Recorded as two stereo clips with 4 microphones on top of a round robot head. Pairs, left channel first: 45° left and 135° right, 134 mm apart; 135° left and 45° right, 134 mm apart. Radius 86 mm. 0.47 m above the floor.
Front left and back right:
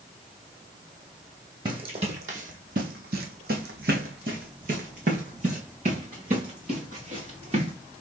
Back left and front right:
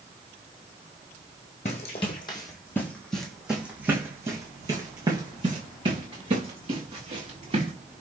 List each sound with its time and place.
1.6 s running footsteps: 170° left, 1.1 m; by 7.7 s 90° right, 3 m